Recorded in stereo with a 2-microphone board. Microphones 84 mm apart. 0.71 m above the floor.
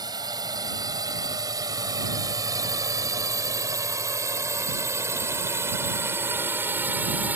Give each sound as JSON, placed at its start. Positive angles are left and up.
{"t": 0.0, "sound": "a drone", "side_deg": -55}